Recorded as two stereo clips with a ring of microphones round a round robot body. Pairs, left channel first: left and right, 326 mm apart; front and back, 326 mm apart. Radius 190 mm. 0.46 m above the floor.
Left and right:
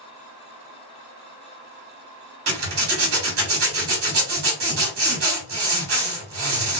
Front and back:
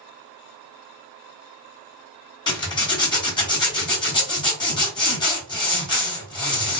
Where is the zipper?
70° right, 1.6 m.